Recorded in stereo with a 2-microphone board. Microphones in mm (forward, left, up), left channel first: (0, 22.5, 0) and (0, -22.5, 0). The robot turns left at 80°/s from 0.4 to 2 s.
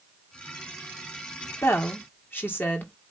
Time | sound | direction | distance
1.6 | a woman speaking | 80° left | 1.8 m